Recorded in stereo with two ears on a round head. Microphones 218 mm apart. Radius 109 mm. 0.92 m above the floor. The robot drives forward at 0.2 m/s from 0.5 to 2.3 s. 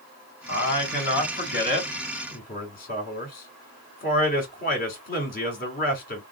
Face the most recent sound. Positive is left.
turn(degrees=40)  # may be behind; listen again after turning